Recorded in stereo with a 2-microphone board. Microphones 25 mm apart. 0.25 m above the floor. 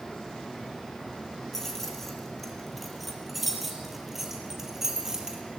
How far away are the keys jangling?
About 4 m.